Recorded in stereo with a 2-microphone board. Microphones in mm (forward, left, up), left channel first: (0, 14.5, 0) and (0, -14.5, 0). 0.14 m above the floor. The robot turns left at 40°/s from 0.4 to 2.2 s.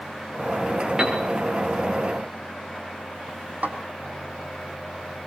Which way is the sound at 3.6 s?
75° right (ahead or behind).